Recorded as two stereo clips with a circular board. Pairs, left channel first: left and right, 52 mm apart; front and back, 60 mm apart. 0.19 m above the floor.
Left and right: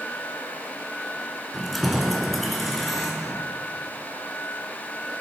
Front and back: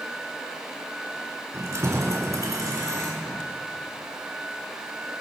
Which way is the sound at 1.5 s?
Straight behind.